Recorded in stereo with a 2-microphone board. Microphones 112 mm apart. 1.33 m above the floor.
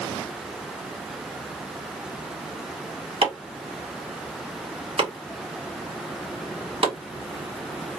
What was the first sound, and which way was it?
Chopping, 60° right (ahead or behind).